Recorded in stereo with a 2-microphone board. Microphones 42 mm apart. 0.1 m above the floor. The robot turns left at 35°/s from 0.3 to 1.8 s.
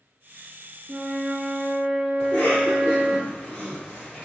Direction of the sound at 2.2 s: 40° left (ahead or behind).